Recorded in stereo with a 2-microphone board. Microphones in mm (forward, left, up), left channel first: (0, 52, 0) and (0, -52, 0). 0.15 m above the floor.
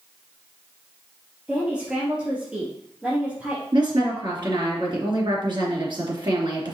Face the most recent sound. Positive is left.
turn(degrees=-50)  # may be behind; listen again after turning